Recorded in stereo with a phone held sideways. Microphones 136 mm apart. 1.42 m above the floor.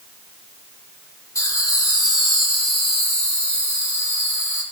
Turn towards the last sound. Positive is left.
turn(degrees=65)  # may be behind; listen again after turning